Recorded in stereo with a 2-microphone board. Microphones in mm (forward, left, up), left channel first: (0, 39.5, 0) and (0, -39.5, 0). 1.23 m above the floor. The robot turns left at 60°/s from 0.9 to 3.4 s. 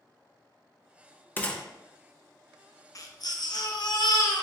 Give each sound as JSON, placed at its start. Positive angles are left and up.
{"t": 1.4, "sound": "a gunshot", "side_deg": 20, "distance_m": 0.6}
{"t": 3.0, "sound": "a baby crying", "side_deg": 45, "distance_m": 0.6}